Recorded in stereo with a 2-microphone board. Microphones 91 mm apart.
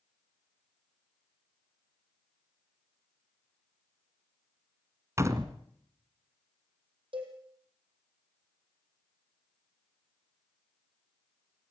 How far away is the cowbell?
About 5 m.